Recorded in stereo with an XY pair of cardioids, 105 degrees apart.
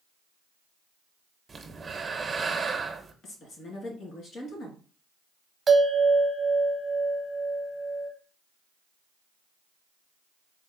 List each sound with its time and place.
1.5 s breathing: 30° right, 0.7 m
3.2 s a woman speaking: 65° left, 1.8 m
5.7 s a bell: 30° right, 0.8 m